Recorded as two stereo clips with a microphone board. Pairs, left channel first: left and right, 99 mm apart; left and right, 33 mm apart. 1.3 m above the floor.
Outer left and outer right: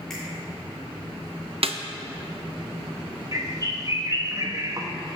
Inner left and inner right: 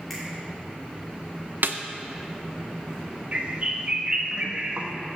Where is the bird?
35° right (ahead or behind), 1.1 m.